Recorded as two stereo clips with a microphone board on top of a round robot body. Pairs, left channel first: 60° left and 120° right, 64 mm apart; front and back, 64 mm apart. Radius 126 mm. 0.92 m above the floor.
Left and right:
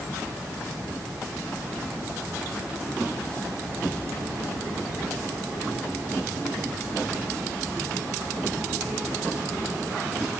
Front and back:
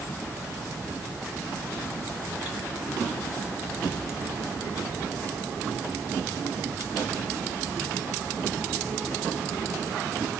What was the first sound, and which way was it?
Only background noise.